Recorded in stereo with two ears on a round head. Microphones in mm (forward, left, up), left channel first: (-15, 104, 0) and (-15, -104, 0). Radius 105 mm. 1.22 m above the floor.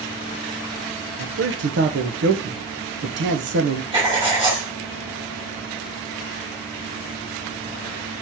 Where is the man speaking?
55° right (ahead or behind), 0.8 m.